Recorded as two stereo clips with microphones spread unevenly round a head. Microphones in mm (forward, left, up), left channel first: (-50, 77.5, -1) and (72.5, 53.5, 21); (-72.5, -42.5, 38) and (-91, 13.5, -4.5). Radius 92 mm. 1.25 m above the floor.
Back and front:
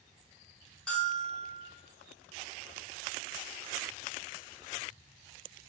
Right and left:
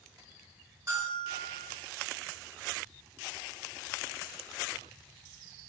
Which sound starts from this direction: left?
A bell, at 0.9 s.